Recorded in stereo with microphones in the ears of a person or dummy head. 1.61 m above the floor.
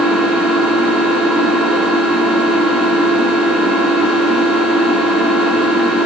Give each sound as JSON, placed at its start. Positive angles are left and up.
{"t": 0.0, "sound": "an engine running", "side_deg": -5, "distance_m": 4.5}